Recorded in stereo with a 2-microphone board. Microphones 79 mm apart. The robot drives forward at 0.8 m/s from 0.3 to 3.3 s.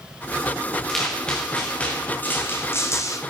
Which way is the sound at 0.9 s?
5° left (ahead or behind).